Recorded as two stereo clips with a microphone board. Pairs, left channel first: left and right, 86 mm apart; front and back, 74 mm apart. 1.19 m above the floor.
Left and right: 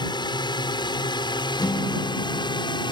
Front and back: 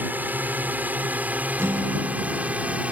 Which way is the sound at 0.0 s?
115° left.